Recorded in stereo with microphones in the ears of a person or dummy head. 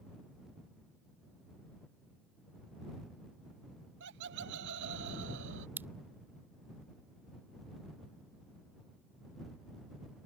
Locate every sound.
4.0 s laughter: 70° right (ahead or behind); by 5.7 s 75° right (ahead or behind)
5.8 s a pop: 15° right (ahead or behind)